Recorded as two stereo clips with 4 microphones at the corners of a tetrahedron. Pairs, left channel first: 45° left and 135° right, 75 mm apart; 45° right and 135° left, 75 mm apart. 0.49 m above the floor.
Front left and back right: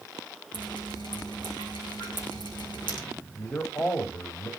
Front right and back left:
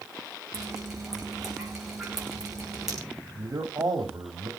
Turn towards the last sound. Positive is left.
turn(degrees=100)